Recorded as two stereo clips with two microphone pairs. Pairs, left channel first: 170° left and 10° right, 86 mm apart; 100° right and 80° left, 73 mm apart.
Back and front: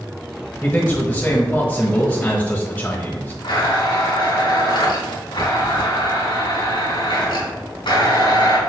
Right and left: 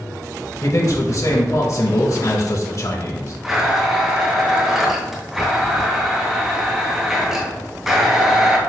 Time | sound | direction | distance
0.6 | a man speaking | 120° right | 1.2 m
3.4 | a blender | 165° left | 3 m